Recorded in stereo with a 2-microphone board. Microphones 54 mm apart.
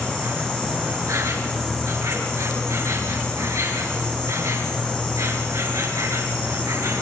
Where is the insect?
70° right (ahead or behind), 5 m.